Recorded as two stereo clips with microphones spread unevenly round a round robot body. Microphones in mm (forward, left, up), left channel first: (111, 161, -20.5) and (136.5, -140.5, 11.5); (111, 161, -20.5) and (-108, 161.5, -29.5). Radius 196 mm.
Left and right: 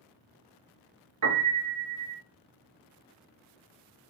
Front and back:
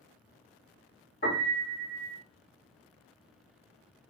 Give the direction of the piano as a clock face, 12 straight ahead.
2 o'clock.